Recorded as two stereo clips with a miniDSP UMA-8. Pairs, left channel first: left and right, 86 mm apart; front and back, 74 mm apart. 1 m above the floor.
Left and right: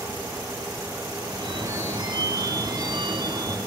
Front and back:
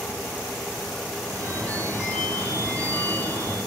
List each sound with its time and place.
1.2 s a phone ringing: 65° right, 5.5 m